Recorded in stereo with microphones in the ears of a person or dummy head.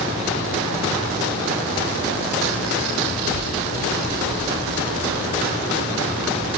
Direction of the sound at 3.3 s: 55° right (ahead or behind).